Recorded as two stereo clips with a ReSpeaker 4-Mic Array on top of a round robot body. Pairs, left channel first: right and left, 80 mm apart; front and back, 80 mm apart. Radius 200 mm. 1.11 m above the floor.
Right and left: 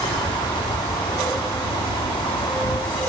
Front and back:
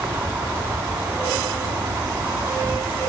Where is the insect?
115° right.